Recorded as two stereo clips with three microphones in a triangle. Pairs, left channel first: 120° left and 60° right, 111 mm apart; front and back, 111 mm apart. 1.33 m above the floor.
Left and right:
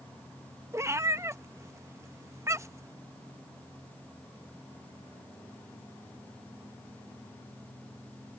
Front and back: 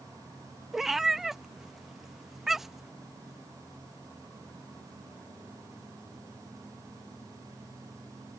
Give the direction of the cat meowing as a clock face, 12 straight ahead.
3 o'clock.